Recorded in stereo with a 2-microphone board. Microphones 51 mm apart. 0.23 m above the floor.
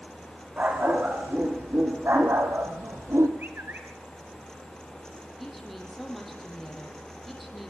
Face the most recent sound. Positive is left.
turn(degrees=5)  # may be behind; listen again after turning